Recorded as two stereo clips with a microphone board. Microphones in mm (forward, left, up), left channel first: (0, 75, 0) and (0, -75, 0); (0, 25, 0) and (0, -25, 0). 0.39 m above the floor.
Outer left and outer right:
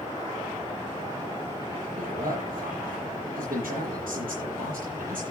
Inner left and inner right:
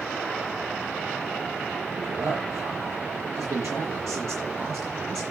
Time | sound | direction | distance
2.0 | a man speaking | 70° right (ahead or behind) | 8.5 m